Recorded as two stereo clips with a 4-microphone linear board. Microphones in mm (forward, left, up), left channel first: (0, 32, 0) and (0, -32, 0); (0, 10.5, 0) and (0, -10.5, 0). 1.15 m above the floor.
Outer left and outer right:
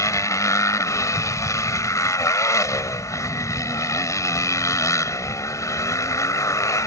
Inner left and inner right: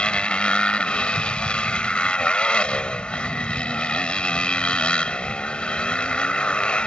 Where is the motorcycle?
60° left (ahead or behind).